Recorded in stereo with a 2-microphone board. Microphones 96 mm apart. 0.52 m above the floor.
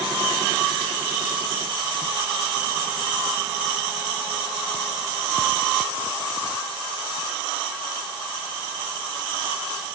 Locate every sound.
Only background noise.